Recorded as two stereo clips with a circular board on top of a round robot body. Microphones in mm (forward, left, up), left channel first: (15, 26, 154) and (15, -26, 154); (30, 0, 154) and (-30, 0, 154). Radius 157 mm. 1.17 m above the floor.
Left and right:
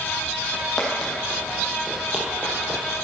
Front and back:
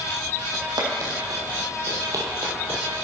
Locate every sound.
0.5 s footsteps: 170° left, 3 m; by 2.8 s 140° right, 1.4 m